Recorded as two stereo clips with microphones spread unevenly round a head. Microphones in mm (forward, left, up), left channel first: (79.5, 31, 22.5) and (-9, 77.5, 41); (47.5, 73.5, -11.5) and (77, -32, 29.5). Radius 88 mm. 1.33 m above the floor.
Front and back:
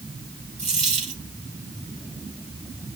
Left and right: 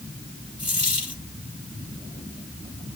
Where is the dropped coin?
165° left, 9.5 m.